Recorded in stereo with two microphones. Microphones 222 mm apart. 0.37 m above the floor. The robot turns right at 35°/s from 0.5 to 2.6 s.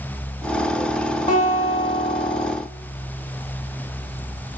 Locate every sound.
1.3 s a guitar: 120° left, 1.1 m; by 2.5 s 160° left, 1.1 m